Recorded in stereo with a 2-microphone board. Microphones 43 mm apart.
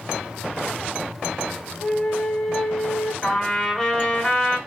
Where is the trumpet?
5° left (ahead or behind), 1.3 m.